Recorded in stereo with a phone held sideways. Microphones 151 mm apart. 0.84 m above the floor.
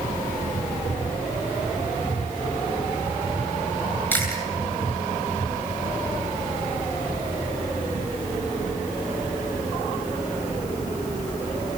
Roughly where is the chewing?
Centre.